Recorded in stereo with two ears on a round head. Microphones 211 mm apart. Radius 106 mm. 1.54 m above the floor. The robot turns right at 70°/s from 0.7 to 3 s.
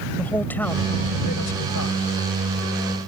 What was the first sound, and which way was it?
A man speaking, 10° left.